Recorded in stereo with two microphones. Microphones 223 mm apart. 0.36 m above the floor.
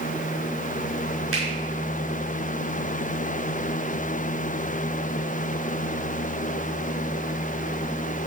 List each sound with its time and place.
1.3 s a finger snap: 75° right (ahead or behind), 5.5 m